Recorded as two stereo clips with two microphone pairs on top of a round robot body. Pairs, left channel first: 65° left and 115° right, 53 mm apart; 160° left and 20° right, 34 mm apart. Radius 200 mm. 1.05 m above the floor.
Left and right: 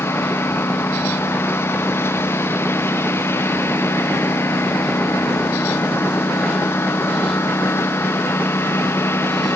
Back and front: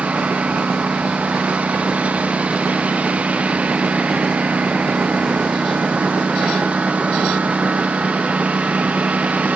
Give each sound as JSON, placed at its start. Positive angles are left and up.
{"t": 0.0, "sound": "a lawn mower", "azimuth_deg": 30}